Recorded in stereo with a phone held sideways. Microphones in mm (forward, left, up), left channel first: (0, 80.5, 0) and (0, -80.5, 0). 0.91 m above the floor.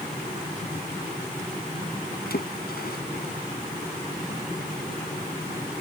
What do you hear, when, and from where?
2.3 s a splash: 75° left (ahead or behind)